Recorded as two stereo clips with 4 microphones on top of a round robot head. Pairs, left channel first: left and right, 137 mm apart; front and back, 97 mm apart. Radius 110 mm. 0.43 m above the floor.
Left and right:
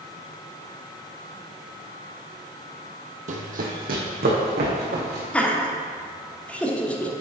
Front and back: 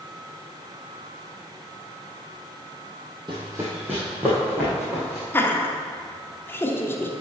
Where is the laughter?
25° left, 1.2 m.